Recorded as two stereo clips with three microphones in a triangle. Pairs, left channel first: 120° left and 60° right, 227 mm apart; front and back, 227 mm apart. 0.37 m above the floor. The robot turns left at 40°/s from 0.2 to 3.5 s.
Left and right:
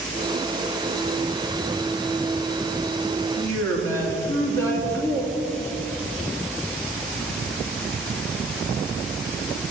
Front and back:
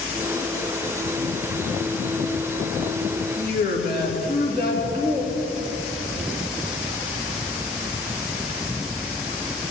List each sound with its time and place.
3.4 s a woman speaking: 50° left, 3.5 m; by 5.3 s 45° left, 3.5 m